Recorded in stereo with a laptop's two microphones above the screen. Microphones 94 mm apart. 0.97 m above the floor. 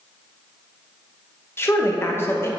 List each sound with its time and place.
1.6 s a woman speaking: 25° left (ahead or behind), 1.1 m